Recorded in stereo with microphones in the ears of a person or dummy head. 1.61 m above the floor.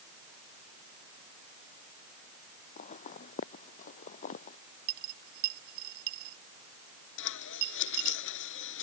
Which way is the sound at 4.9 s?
60° right (ahead or behind).